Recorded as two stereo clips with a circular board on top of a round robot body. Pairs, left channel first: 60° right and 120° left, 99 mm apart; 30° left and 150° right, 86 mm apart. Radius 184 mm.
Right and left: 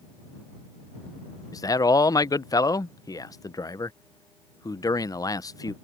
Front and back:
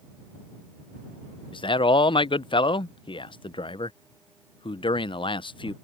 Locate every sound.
1.5 s a man speaking: straight ahead